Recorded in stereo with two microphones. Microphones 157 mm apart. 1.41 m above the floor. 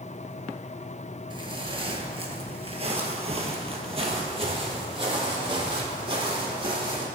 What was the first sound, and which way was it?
Footsteps, 30° right (ahead or behind).